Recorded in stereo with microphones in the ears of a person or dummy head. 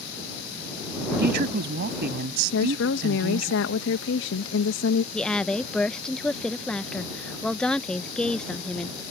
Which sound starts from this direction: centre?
A woman speaking, at 5.1 s.